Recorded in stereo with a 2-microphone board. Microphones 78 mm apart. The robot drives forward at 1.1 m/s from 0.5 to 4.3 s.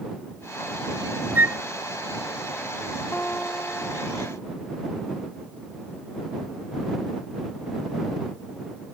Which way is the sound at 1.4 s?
30° right (ahead or behind).